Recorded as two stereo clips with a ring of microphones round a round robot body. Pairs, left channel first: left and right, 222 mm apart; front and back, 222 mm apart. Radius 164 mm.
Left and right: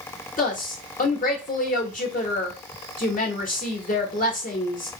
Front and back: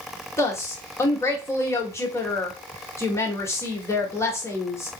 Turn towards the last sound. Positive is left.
turn(degrees=70)